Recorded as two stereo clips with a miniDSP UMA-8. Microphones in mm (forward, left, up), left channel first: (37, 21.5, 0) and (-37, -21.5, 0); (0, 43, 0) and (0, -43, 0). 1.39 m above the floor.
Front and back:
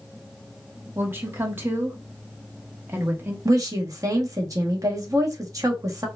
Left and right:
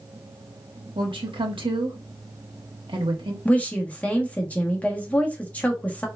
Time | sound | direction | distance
0.9 | a woman speaking | 85° right | 1.1 m
3.5 | a woman speaking | 165° left | 1.0 m